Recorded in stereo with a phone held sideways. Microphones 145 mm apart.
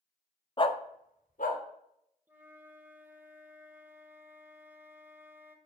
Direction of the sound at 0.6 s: 30° left (ahead or behind).